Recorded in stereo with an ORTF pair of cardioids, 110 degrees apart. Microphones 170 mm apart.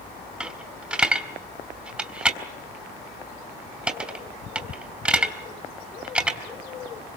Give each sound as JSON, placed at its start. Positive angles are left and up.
{"t": 0.4, "sound": "a dropped coin", "azimuth_deg": -5, "distance_m": 4.0}